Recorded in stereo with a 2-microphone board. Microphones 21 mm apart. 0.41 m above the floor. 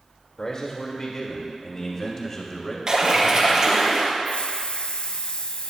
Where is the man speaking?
40° left (ahead or behind), 1.7 m; by 2.8 s 25° left (ahead or behind), 2.5 m.